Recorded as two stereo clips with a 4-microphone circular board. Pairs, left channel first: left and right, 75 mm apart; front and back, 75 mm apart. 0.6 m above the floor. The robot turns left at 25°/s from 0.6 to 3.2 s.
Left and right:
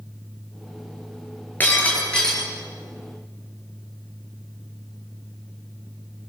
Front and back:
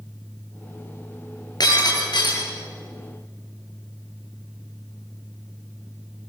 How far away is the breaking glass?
About 7.5 m.